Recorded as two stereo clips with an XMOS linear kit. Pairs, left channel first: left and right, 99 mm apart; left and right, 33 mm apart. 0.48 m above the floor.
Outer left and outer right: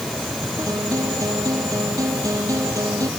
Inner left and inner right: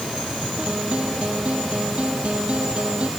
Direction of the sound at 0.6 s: 35° right (ahead or behind).